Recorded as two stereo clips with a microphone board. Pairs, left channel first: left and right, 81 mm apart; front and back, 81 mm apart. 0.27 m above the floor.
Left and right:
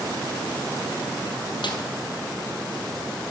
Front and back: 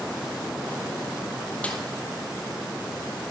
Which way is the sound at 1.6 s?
75° left.